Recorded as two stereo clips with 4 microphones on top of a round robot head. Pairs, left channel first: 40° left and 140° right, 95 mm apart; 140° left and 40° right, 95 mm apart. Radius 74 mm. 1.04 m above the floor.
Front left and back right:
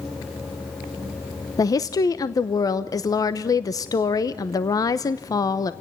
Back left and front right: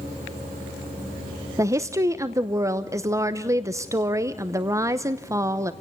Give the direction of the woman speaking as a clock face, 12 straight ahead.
12 o'clock.